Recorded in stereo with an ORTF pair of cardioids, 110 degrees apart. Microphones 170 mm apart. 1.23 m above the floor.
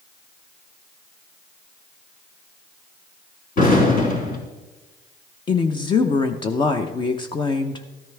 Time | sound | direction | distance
3.6 | an explosion | 60° left | 4 m
5.5 | a woman speaking | 30° left | 0.7 m